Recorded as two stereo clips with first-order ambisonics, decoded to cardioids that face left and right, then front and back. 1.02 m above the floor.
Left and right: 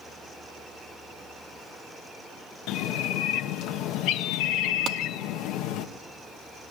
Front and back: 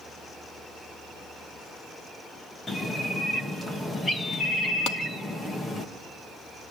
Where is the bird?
75° left, 1.1 m.